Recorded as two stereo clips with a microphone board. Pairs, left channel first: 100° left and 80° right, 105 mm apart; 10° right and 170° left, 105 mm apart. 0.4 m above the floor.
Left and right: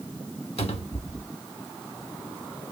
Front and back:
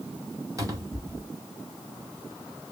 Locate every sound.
0.6 s a cupboard door: 115° left, 1.2 m